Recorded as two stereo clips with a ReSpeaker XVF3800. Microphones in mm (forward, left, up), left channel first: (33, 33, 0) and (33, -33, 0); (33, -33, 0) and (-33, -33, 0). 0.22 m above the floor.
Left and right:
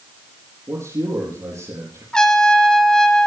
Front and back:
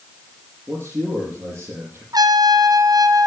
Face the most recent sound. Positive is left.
turn(degrees=170)